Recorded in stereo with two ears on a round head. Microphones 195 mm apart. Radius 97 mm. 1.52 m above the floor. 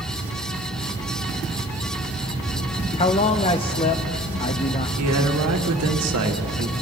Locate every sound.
3.0 s a man speaking: 25° left (ahead or behind), 0.5 m
5.0 s a man speaking: 80° right, 1.4 m